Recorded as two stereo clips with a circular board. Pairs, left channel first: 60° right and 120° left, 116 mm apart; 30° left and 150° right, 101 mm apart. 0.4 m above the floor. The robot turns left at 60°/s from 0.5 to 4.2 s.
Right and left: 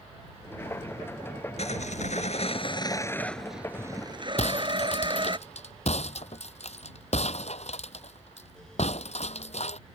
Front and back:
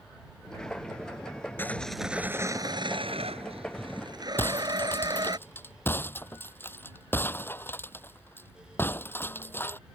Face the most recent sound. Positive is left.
turn(degrees=-40)